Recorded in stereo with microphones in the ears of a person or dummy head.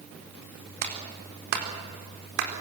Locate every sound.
0.8 s a clap: 55° right (ahead or behind), 4 m